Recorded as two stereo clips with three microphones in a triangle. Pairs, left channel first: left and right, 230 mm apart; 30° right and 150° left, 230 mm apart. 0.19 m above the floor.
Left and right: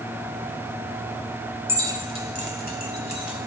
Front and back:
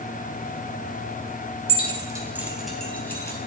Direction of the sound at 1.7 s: 160° right.